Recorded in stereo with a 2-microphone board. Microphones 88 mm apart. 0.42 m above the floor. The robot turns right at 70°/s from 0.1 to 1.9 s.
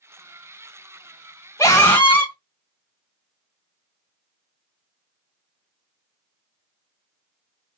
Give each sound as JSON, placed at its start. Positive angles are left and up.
{"t": 1.6, "sound": "a scream", "side_deg": 30, "distance_m": 1.6}